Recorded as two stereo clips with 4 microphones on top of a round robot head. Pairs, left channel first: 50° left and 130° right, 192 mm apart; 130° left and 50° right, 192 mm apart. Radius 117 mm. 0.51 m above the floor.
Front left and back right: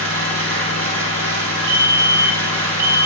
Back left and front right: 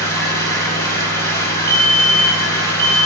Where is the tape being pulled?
I don't hear tape being pulled.